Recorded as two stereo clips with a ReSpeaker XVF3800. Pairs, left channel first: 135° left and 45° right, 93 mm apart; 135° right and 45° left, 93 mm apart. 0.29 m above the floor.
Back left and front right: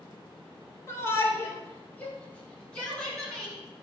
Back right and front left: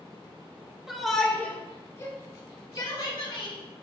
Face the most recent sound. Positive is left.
turn(degrees=-140)